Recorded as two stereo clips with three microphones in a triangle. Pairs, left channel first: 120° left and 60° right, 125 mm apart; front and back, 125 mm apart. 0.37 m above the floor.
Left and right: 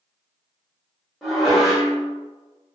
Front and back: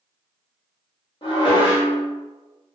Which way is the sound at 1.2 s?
30° left.